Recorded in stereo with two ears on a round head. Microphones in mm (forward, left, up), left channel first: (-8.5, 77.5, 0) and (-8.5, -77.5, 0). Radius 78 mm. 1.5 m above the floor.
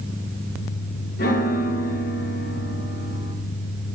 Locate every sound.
1.2 s a piano: 55° left (ahead or behind), 0.9 m